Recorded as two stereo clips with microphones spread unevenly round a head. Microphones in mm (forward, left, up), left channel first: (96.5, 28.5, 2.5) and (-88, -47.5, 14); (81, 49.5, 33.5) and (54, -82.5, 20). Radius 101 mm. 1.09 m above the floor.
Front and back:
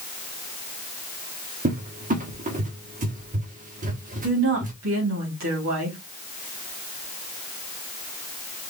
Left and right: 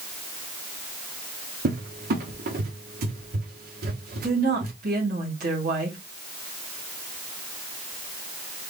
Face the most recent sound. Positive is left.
turn(degrees=-130)